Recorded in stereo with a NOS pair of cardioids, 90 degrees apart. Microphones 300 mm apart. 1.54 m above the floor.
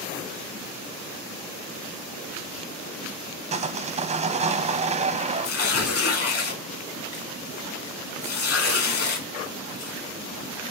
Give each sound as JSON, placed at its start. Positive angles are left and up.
{"t": 3.5, "sound": "sawing", "azimuth_deg": -20, "distance_m": 0.5}
{"t": 5.4, "sound": "tearing paper", "azimuth_deg": 50, "distance_m": 1.6}